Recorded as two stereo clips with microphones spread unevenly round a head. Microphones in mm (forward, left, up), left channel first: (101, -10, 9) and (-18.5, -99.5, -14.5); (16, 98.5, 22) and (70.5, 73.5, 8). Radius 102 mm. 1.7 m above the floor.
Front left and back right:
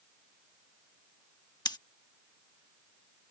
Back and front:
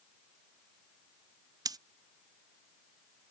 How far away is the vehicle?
I don't hear a vehicle.